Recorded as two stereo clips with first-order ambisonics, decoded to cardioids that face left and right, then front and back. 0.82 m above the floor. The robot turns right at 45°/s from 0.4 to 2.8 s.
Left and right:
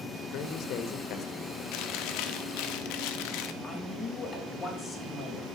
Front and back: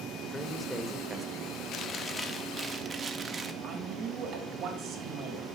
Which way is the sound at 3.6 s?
145° left.